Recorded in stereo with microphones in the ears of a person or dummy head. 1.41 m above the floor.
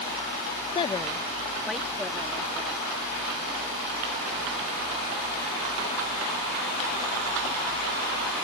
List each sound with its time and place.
0.8 s a woman speaking: 25° left (ahead or behind); by 3.0 s 10° right (ahead or behind)